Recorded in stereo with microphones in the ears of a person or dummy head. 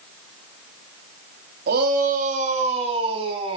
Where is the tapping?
No tapping in this recording.